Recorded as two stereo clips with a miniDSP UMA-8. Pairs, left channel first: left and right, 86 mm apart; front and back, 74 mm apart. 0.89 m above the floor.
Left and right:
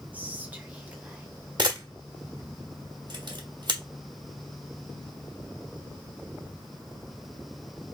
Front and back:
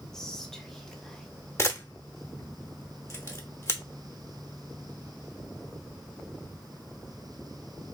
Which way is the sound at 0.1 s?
70° right.